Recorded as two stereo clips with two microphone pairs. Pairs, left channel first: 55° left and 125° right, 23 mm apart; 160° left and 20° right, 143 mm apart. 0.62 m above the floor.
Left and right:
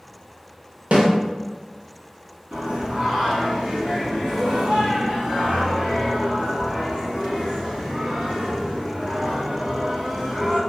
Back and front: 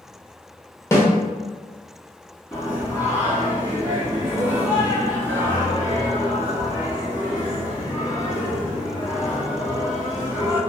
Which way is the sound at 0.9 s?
125° right.